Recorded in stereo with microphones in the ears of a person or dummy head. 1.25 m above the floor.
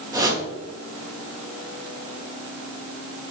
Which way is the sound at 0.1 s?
15° right (ahead or behind).